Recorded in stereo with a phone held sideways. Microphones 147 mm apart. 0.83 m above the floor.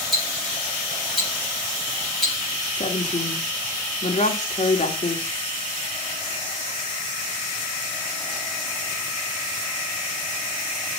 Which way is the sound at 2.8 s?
50° left (ahead or behind).